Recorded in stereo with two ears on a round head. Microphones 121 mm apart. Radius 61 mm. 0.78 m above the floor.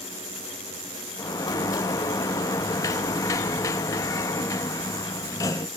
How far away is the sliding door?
About 0.9 m.